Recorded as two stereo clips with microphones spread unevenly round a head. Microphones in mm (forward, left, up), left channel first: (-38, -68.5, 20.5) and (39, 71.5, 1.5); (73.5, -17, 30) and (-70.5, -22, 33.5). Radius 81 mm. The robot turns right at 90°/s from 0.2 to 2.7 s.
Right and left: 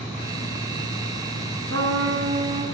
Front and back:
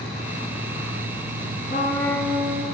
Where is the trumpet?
40° left, 4.5 m; by 2.6 s 125° left, 4.5 m.